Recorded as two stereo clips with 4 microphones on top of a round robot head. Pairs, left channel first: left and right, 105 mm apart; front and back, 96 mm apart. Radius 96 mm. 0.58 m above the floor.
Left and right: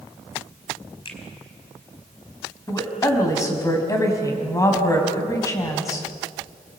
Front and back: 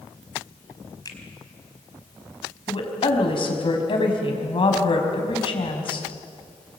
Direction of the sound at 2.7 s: 30° left.